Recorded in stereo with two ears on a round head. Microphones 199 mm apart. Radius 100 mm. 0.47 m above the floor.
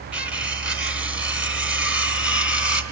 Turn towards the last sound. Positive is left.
turn(degrees=-5)  # may be behind; listen again after turning